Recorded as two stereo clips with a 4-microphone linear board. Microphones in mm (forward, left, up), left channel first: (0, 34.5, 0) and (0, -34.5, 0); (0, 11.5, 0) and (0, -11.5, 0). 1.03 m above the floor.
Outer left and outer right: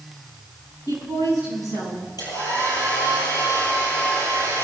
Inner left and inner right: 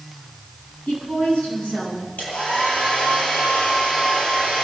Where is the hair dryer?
75° left (ahead or behind), 9 m.